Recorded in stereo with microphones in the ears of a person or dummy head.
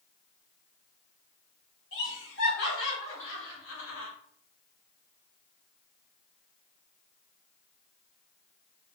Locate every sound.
1.9 s laughter: 70° left (ahead or behind), 1.7 m